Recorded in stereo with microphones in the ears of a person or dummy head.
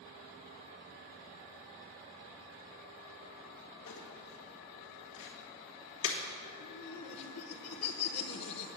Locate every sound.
3.9 s crumpling: 60° left (ahead or behind), 1.7 m
6.6 s laughter: 45° left (ahead or behind), 1.0 m